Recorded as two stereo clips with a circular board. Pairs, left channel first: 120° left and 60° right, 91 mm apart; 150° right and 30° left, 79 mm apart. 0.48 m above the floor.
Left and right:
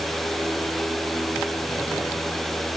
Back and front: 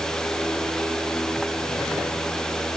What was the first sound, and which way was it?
Only background noise.